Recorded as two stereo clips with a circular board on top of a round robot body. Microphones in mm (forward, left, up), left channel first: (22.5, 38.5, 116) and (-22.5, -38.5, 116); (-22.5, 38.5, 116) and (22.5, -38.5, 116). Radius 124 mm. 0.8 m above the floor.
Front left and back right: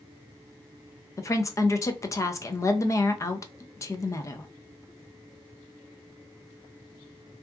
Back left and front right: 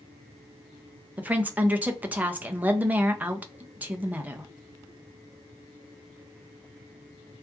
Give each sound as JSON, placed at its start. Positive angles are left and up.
{"t": 1.2, "sound": "a woman speaking", "azimuth_deg": 10, "distance_m": 0.5}